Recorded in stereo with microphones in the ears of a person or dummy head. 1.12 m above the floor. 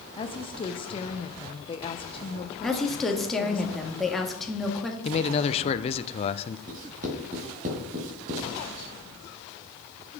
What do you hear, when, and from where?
0.2 s a woman speaking: 25° left (ahead or behind), 0.8 m
2.6 s a woman speaking: centre (ahead or behind), 1.7 m
5.0 s a man speaking: 30° left (ahead or behind), 0.6 m
6.7 s writing: 40° right (ahead or behind), 2.5 m